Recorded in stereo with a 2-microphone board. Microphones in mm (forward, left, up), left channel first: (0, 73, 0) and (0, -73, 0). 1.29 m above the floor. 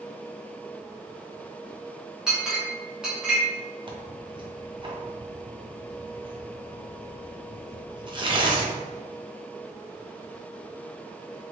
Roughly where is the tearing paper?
Right.